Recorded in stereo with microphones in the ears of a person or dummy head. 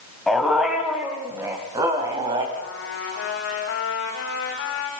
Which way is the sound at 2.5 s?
65° left (ahead or behind).